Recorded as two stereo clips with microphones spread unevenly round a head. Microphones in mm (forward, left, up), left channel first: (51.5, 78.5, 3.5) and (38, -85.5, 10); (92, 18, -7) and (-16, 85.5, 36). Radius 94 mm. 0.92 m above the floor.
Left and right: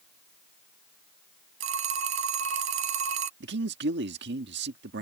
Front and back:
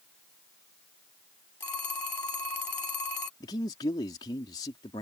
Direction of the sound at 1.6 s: 110° right.